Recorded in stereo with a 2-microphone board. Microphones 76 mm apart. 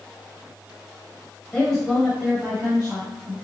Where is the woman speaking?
10° left (ahead or behind), 1.1 m; by 3.3 s 45° right (ahead or behind), 1.7 m.